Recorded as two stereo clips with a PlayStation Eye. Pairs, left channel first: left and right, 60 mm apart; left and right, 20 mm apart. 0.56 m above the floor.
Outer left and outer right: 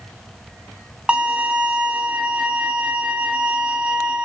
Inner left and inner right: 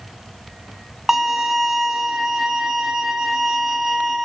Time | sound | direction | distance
1.1 | a violin | 20° right (ahead or behind) | 1.5 m